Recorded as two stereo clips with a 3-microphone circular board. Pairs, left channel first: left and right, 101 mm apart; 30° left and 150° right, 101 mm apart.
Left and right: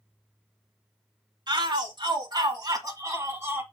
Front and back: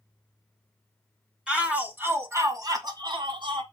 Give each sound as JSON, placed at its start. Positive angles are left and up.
{"t": 1.5, "sound": "a shout", "azimuth_deg": -70, "distance_m": 2.0}